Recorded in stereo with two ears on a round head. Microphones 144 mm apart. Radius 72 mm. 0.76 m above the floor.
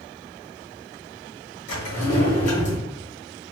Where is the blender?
No blender in this recording.